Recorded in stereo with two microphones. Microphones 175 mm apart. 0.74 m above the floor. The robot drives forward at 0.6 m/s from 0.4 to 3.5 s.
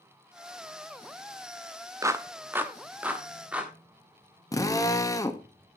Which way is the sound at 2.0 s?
15° right (ahead or behind).